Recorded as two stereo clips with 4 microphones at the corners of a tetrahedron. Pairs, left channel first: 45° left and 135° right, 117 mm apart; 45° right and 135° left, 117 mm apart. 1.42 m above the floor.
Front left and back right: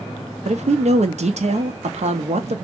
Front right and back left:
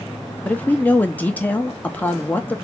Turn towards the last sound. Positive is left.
turn(degrees=-120)